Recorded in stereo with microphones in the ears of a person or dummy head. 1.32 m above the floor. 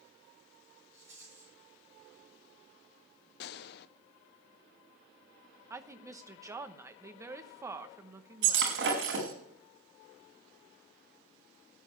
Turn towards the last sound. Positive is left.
turn(degrees=-75)  # may be behind; listen again after turning